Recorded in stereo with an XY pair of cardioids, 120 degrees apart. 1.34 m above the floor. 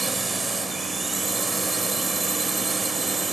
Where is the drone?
20° right.